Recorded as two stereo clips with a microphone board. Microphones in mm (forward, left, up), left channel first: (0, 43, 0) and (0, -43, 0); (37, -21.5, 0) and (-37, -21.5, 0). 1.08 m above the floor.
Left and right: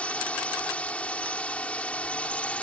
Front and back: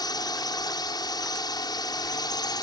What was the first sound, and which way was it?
A drone, 15° left.